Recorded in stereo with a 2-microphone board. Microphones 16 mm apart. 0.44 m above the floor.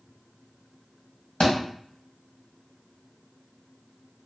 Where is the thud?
70° left (ahead or behind), 1.4 m.